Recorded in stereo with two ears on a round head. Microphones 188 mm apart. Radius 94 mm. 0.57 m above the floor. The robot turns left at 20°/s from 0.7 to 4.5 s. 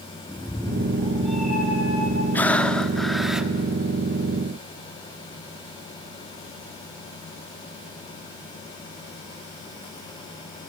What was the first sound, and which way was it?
A cat meowing, 15° left.